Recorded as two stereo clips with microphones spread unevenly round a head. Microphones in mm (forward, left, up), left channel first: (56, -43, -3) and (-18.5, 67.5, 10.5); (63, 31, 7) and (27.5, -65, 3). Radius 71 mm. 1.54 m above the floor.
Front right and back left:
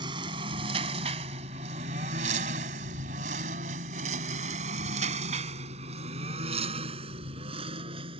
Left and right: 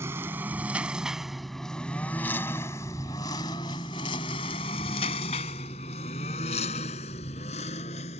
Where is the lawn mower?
175° left; by 8.2 s 80° left.